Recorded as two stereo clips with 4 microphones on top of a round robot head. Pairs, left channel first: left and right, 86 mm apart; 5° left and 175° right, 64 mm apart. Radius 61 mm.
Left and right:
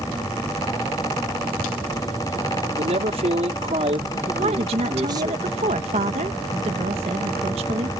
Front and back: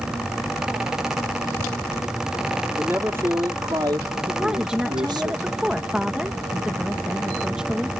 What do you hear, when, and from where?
2.8 s a man speaking: 105° right; by 5.3 s 150° right
4.3 s a woman speaking: 95° right